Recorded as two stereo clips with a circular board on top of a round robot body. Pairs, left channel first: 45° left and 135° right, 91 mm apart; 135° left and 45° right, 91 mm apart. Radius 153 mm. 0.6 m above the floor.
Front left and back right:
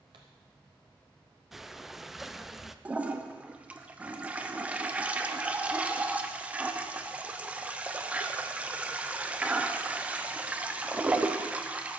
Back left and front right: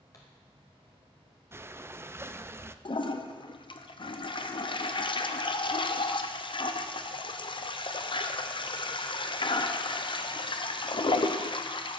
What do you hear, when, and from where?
0.1 s a pop: 170° right, 0.5 m
1.5 s breathing: 50° right, 0.6 m
2.9 s a toilet flushing: 150° left, 0.7 m